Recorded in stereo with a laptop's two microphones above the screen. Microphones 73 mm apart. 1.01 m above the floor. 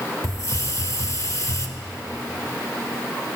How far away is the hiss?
About 0.9 m.